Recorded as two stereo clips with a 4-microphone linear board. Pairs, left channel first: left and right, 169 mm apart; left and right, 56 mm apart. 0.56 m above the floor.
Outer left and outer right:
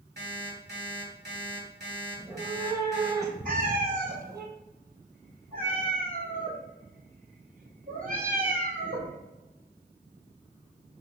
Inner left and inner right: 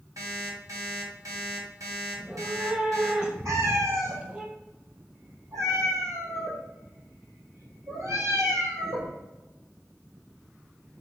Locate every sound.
0.2 s an alarm clock: 80° right, 2 m
2.1 s a cat meowing: 20° right (ahead or behind), 0.9 m
3.5 s a cat meowing: 55° right (ahead or behind), 1.5 m